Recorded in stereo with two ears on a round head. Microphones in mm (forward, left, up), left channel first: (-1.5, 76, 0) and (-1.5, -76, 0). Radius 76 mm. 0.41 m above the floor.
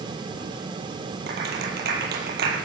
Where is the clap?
65° right (ahead or behind), 8 m.